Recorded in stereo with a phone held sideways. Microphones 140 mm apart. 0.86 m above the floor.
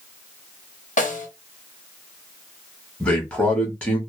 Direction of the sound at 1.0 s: 65° left (ahead or behind).